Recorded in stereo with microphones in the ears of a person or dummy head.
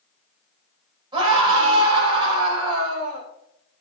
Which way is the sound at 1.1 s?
25° right (ahead or behind).